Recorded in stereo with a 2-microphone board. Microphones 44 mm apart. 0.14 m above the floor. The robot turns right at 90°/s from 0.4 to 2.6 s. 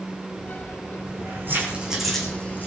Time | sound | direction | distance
1.1 | keys jangling | 90° right | 7 m